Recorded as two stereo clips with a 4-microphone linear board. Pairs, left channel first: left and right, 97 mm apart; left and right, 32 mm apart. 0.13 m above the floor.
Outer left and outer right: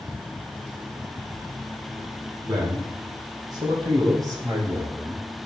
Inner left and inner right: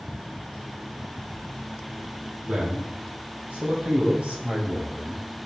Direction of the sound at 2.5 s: 45° right (ahead or behind).